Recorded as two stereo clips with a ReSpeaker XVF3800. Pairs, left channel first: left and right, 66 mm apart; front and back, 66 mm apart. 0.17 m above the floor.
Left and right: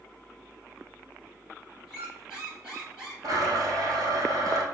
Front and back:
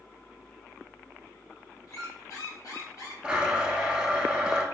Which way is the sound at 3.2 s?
105° right.